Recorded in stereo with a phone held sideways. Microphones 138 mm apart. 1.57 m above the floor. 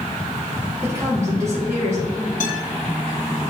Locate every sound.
0.8 s a woman speaking: 20° right (ahead or behind), 3 m
2.4 s a guitar: 70° left (ahead or behind), 3 m